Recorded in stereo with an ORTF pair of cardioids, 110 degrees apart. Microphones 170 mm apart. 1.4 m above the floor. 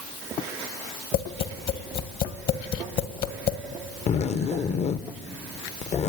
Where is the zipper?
40° left, 0.8 m.